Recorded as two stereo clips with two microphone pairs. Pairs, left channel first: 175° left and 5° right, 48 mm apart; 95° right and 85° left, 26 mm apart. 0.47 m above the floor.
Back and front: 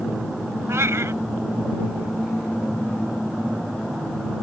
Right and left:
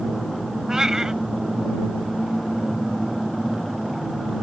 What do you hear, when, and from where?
0.7 s a cat meowing: 20° left